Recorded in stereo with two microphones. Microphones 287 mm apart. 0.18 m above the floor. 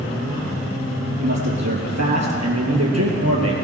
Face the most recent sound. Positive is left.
turn(degrees=-55)  # may be behind; listen again after turning